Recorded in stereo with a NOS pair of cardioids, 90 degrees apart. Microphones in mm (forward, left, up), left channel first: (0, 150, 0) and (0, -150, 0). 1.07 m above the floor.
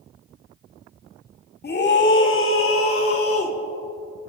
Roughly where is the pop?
No pop in this recording.